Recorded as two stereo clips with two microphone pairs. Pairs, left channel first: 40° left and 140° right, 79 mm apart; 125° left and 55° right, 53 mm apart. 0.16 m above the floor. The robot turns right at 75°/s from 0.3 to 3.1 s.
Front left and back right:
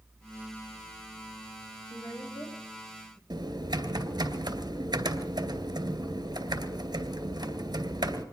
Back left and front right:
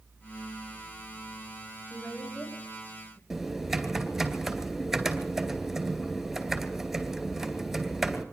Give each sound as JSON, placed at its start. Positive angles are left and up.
{"t": 1.9, "sound": "a woman speaking", "azimuth_deg": 20, "distance_m": 7.5}
{"t": 3.3, "sound": "typing on a keyboard", "azimuth_deg": -140, "distance_m": 2.5}